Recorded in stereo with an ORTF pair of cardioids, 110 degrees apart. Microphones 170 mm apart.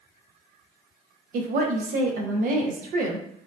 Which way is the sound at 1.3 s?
55° right.